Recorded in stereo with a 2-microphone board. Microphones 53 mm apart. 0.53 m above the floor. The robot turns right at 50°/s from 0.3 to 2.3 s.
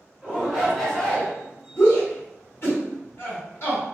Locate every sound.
0.2 s a shout: 20° right, 1.8 m; by 1.3 s 30° left, 1.8 m
1.8 s a shout: 60° left (ahead or behind), 1.4 m; by 3.8 s 50° left (ahead or behind), 1.4 m